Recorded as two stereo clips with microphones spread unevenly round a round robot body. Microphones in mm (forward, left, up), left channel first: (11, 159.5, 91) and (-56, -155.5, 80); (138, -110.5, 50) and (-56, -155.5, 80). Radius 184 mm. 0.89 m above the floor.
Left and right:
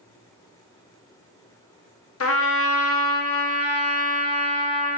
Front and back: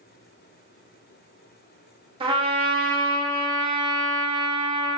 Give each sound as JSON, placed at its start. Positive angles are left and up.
{"t": 2.2, "sound": "a trumpet", "azimuth_deg": 120, "distance_m": 1.6}